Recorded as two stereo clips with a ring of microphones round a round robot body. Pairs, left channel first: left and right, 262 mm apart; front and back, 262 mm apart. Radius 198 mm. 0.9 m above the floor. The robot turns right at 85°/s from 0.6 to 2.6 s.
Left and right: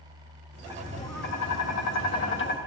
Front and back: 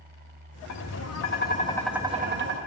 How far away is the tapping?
About 1.4 m.